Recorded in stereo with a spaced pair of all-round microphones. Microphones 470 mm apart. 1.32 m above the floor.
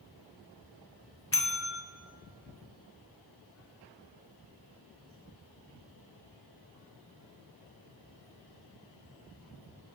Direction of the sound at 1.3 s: 30° left (ahead or behind).